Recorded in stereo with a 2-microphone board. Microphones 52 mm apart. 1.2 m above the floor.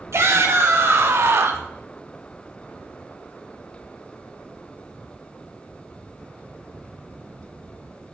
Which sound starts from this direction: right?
A shout, at 0.1 s.